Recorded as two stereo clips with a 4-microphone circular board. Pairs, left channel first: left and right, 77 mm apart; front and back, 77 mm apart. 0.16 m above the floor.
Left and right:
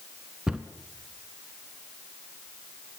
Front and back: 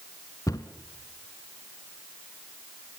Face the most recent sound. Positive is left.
turn(degrees=-15)